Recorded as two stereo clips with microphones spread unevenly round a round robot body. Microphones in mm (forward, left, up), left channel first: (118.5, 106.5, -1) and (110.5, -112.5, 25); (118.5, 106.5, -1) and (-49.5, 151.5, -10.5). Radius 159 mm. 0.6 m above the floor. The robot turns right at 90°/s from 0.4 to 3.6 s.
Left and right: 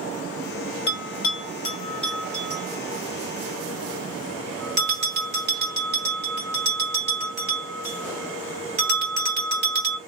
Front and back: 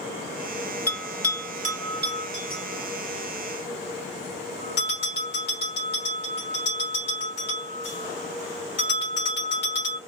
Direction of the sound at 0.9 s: 65° left.